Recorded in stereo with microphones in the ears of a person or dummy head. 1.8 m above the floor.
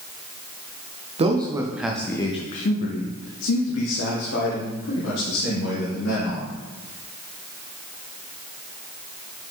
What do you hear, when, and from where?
1.2 s a man speaking: 30° right (ahead or behind), 0.8 m; by 6.6 s 85° left, 2.5 m